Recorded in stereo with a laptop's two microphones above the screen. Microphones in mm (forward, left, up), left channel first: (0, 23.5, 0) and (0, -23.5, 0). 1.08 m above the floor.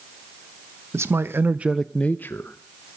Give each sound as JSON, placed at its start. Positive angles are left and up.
{"t": 0.9, "sound": "a man speaking", "side_deg": -70, "distance_m": 1.2}